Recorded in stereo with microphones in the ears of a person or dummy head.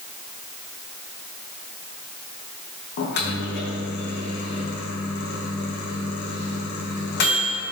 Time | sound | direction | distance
3.0 | a microwave | 50° left (ahead or behind) | 1.0 m